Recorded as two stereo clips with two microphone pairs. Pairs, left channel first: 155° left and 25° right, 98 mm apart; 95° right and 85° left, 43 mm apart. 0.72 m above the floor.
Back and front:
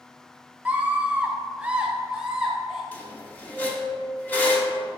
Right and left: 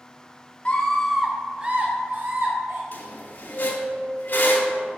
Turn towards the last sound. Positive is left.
turn(degrees=-135)